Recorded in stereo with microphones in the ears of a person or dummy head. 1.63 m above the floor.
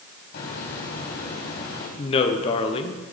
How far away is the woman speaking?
About 0.9 m.